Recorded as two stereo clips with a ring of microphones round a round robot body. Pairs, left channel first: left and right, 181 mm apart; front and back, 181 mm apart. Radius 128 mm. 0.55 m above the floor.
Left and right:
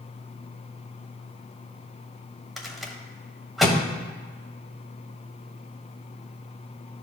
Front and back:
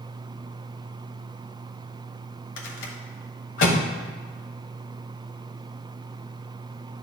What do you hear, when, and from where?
2.6 s a rattle: straight ahead, 1.2 m